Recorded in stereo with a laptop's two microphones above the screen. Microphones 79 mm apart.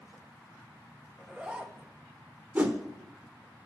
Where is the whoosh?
20° right (ahead or behind), 0.8 m.